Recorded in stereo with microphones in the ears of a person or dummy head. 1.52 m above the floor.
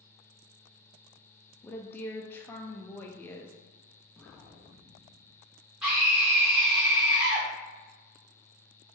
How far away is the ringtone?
I don't hear a ringtone.